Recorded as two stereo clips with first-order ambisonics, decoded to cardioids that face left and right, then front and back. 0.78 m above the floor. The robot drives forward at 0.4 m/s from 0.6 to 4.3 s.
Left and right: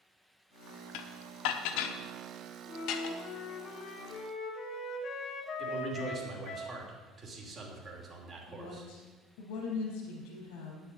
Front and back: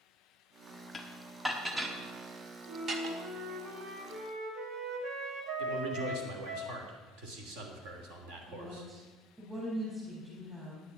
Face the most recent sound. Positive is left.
turn(degrees=100)